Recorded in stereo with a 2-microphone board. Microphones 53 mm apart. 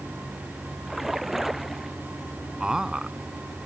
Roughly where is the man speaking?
Centre.